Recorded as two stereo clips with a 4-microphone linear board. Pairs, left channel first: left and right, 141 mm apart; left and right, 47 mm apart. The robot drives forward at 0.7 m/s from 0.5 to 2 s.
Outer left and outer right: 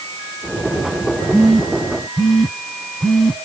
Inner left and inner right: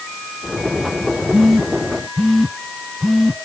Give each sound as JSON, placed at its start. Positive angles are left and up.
{"t": 1.3, "sound": "a phone buzzing", "side_deg": 0, "distance_m": 1.1}